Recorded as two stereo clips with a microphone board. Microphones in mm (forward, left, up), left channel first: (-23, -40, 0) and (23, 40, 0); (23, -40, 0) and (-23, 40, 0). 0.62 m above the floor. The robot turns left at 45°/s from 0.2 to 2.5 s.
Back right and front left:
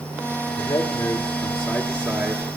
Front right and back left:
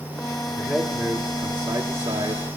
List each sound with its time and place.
0.6 s a man speaking: 160° right, 1.8 m; by 2.5 s 115° left, 1.8 m